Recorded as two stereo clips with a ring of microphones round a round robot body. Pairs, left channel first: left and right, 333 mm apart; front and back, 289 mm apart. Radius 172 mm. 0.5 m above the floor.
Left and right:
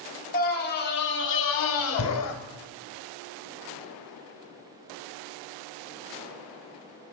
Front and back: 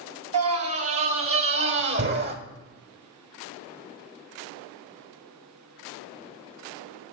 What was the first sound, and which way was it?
A scream, 155° left.